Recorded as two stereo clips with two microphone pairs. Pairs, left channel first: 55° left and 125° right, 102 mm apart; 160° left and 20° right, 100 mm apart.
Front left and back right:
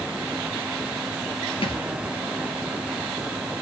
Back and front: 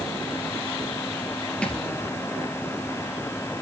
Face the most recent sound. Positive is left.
turn(degrees=80)